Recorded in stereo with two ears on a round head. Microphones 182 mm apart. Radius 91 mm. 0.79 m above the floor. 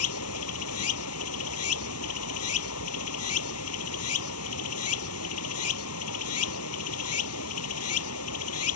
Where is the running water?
90° left.